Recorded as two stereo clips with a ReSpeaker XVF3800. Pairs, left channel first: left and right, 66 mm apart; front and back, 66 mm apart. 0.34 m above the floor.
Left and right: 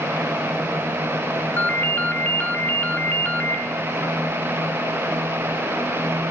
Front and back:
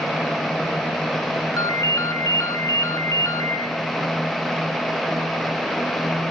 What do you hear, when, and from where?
1.6 s a ringtone: 30° left, 1.2 m